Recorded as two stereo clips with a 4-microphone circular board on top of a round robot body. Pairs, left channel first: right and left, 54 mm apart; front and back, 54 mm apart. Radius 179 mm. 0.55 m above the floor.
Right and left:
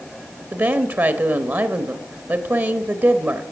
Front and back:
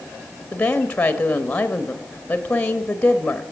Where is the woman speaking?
60° left, 1.1 m.